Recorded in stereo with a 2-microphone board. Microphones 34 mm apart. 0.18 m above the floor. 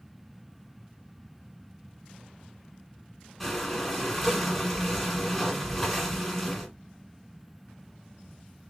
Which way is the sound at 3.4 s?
5° left (ahead or behind).